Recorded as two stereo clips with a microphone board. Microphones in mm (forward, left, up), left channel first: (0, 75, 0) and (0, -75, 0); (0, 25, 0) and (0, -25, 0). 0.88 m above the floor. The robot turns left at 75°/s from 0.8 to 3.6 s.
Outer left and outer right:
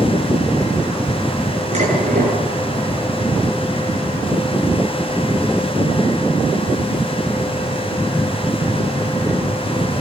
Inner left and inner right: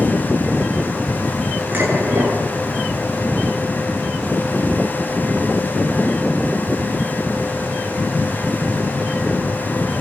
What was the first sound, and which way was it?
Dishes clattering, 45° right.